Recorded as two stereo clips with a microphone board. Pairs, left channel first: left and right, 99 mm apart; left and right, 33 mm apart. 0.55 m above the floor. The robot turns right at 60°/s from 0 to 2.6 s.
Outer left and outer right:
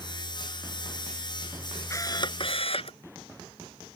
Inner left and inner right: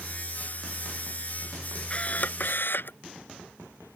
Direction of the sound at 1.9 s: 30° left.